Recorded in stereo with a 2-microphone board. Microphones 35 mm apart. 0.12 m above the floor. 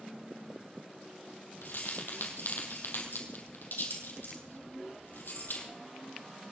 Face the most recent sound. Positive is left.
turn(degrees=70)  # may be behind; listen again after turning